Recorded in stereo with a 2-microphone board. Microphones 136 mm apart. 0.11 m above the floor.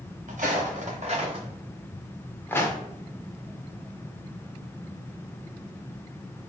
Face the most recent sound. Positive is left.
turn(degrees=30)  # may be behind; listen again after turning